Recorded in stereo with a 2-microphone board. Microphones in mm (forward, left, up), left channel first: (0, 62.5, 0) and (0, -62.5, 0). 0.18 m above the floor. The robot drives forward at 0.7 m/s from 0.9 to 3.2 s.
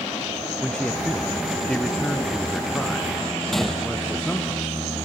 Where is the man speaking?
5° left (ahead or behind).